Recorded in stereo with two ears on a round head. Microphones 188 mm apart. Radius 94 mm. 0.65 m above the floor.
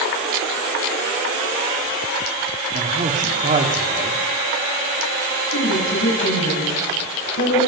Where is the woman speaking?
65° left (ahead or behind), 5.5 m.